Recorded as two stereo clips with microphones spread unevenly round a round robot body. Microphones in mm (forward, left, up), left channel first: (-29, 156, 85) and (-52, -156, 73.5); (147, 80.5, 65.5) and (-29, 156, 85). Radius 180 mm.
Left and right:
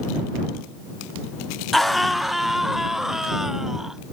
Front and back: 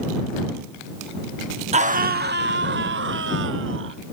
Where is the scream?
Straight behind; by 4.0 s 175° left.